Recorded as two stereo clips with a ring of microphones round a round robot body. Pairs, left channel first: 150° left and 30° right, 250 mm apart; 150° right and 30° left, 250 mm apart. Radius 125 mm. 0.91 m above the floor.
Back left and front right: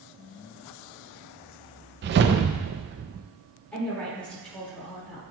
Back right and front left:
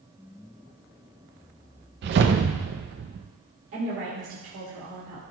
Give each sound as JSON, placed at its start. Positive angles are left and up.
{"t": 2.0, "sound": "a whoosh", "azimuth_deg": 0, "distance_m": 0.5}
{"t": 3.7, "sound": "a woman speaking", "azimuth_deg": 65, "distance_m": 2.0}